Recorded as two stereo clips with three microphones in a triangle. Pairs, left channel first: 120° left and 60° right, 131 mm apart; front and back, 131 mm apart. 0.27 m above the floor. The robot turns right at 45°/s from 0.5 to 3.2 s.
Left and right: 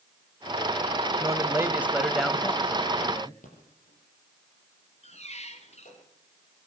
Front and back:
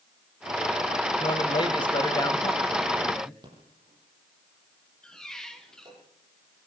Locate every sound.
1.2 s a man speaking: 15° right, 1.1 m; by 3.3 s 75° left, 1.1 m
3.4 s a rattle: 125° left, 7 m
5.0 s a squeak: 85° left, 2 m